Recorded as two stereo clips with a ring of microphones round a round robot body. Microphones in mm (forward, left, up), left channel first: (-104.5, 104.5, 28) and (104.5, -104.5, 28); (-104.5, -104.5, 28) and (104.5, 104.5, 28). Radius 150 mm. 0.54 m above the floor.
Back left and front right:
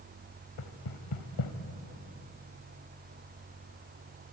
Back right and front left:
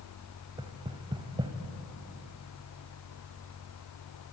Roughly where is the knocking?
Behind left.